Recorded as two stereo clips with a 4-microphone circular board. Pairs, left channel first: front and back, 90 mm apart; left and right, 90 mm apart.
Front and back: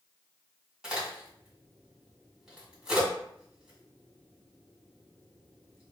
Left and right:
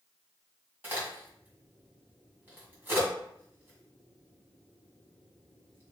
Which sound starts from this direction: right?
A crack, at 0.8 s.